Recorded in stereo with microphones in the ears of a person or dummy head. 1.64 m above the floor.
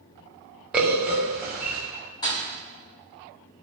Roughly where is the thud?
Left.